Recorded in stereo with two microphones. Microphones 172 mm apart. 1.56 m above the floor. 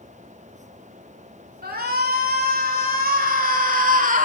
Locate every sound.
1.6 s a shout: 65° right (ahead or behind), 4 m; by 4.3 s 50° right (ahead or behind), 2.5 m